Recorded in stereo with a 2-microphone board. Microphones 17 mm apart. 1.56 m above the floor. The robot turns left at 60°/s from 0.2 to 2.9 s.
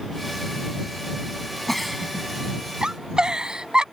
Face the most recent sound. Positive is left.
turn(degrees=-50)  # may be behind; listen again after turning